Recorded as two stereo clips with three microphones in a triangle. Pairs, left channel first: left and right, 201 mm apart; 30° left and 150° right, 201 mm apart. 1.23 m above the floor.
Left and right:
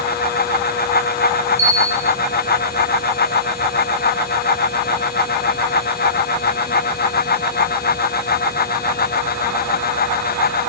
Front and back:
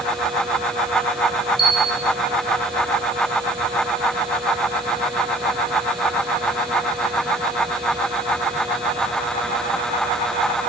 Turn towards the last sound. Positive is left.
turn(degrees=-90)